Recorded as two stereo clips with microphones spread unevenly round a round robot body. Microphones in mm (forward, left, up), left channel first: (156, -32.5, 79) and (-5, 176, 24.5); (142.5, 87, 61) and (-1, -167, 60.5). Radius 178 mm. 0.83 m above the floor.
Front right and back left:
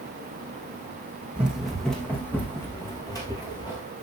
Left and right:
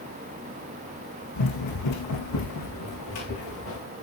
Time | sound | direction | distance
1.4 | running footsteps | 40° left | 3.5 m